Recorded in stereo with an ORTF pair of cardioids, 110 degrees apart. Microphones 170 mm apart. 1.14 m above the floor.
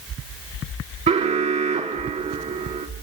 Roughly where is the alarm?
Ahead right.